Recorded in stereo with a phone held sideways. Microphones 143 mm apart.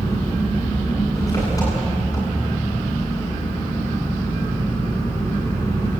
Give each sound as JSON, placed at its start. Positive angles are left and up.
{"t": 0.0, "sound": "an engine running", "side_deg": 25, "distance_m": 10.0}